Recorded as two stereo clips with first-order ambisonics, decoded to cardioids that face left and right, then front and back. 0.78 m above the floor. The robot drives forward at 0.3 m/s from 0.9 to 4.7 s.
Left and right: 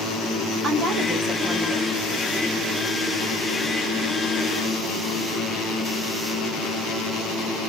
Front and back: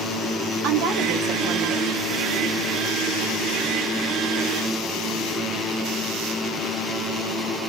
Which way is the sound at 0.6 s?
155° right.